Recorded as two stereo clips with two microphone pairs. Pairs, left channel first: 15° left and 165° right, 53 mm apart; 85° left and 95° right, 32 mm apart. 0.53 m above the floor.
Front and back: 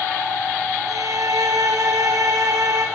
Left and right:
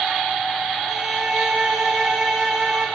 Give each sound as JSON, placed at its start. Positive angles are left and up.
{"t": 0.9, "sound": "a violin", "azimuth_deg": -175, "distance_m": 9.5}